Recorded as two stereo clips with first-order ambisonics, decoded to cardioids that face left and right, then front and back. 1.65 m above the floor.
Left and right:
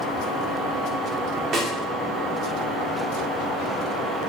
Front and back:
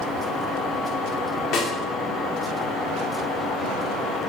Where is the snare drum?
35° right, 2.5 m.